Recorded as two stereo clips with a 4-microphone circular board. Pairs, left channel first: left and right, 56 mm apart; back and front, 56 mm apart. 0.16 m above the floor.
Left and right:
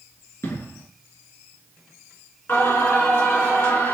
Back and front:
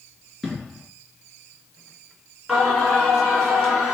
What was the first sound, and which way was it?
An explosion, 90° left.